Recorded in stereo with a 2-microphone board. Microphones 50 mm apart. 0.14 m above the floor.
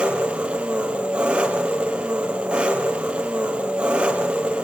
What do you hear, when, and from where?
0.0 s an engine running: 25° right (ahead or behind), 2.5 m